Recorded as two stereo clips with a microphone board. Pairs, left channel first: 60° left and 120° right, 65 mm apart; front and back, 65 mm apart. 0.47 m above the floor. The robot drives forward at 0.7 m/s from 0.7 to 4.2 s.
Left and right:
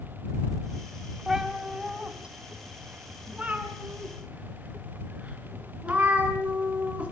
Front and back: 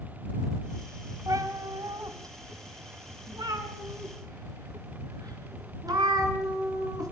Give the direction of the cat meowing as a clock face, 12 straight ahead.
7 o'clock.